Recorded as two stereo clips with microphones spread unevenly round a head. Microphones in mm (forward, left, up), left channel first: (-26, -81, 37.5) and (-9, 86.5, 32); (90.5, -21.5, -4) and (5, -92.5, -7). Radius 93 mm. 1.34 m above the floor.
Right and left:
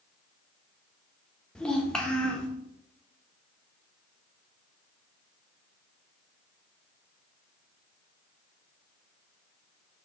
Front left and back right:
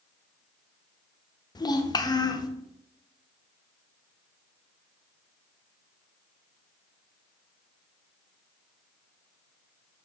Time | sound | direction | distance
1.6 | a child speaking | 10° right | 1.0 m